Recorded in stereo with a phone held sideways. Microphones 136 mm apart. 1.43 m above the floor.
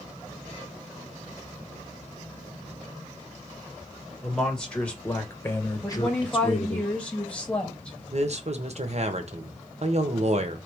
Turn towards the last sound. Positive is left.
turn(degrees=-55)  # may be behind; listen again after turning